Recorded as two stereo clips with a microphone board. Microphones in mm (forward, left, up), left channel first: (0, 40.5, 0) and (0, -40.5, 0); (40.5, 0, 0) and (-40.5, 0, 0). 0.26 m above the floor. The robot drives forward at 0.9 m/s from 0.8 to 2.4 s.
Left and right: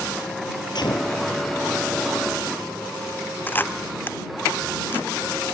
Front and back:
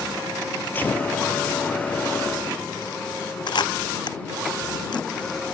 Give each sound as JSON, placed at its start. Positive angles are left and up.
{"t": 0.8, "sound": "a gunshot", "azimuth_deg": 65}
{"t": 3.5, "sound": "a camera shutter", "azimuth_deg": 25}